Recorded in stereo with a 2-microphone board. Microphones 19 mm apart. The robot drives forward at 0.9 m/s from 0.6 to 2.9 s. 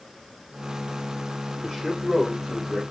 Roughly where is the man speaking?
Centre.